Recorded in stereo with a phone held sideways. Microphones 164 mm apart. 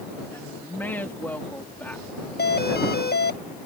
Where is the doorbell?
75° left (ahead or behind).